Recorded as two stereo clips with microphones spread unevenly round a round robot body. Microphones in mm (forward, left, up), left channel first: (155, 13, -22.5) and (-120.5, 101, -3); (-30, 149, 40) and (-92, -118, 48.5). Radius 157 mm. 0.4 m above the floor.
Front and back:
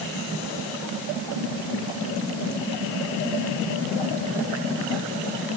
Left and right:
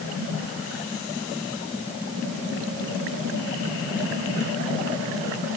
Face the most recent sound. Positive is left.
No sound to turn to.